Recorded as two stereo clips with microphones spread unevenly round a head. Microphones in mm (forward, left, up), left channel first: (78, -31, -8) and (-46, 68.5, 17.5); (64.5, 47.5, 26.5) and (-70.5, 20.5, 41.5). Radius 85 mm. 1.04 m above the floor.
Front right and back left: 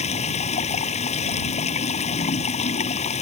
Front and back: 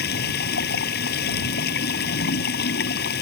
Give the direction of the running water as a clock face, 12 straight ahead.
12 o'clock.